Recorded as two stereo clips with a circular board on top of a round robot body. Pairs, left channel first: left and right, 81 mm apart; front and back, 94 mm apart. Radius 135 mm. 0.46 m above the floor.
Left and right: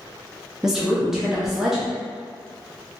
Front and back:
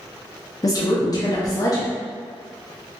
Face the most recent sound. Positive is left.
turn(degrees=-10)